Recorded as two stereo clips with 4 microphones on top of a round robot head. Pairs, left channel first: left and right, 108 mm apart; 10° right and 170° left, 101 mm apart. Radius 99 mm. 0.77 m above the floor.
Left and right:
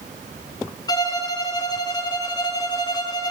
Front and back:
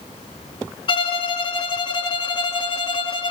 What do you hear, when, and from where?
0.9 s a violin: 30° left, 0.7 m